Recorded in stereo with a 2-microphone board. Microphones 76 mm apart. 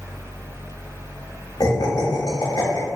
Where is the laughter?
55° left (ahead or behind), 1.4 m.